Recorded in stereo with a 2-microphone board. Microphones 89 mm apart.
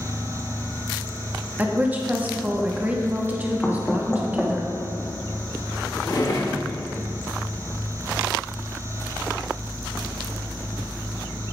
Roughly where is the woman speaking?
Centre.